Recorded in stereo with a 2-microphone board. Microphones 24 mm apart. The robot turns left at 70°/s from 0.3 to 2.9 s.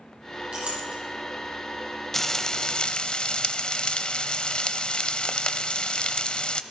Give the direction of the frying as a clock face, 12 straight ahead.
7 o'clock.